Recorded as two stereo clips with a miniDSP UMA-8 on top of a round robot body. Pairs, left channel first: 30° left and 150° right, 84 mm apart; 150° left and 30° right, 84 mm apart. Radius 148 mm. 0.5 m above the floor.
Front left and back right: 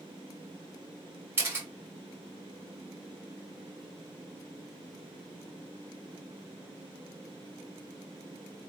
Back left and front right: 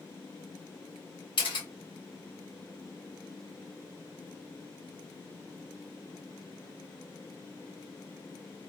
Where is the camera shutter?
150° left, 3 m.